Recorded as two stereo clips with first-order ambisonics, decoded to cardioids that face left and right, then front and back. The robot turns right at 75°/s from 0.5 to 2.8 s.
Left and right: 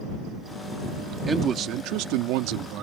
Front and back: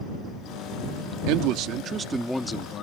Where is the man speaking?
170° right; by 2.8 s 55° right.